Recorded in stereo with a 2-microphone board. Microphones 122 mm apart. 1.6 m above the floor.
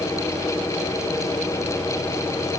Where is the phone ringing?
I don't hear a phone ringing.